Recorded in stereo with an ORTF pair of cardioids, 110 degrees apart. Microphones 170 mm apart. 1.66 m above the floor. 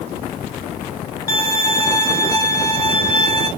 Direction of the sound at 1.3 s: 15° left.